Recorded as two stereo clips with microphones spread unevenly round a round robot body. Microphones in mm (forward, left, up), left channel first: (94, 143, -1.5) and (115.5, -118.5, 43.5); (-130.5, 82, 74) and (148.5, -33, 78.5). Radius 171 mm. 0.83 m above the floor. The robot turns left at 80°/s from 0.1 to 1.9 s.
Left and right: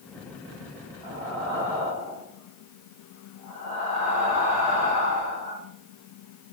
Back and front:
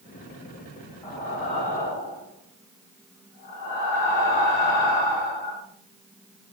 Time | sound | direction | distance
1.0 | breathing | 120° right | 1.5 m